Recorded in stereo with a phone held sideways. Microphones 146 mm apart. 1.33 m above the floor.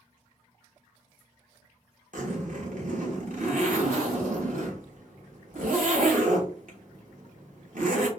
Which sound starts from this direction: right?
A zipper, at 2.1 s.